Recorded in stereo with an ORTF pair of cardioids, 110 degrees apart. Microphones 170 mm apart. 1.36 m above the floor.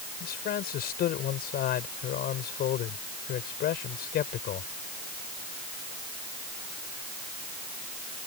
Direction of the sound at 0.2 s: 65° left.